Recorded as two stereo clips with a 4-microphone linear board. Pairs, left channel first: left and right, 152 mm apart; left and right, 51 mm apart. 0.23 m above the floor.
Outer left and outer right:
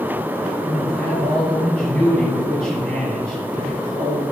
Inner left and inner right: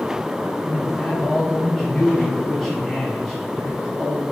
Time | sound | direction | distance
0.6 | a man speaking | 5° left (ahead or behind) | 3.5 m